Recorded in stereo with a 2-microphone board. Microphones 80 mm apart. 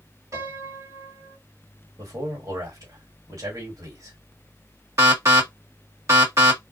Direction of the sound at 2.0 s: 50° right (ahead or behind).